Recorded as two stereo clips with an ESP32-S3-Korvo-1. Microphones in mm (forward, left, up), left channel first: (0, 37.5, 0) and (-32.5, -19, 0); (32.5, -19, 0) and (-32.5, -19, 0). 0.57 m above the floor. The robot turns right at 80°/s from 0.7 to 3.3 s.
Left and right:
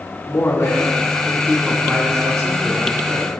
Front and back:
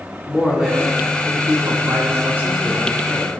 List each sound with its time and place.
0.3 s a man speaking: 95° left, 2.5 m; by 3.3 s 55° right, 2.5 m